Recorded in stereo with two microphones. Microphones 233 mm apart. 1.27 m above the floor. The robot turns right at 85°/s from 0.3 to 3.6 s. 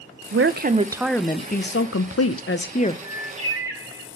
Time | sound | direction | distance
0.3 | a woman speaking | 65° right | 0.5 m
3.0 | a bird | 65° right | 1.5 m